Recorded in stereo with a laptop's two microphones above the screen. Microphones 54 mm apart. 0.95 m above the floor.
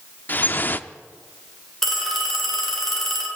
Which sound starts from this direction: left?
Dripping, at 0.3 s.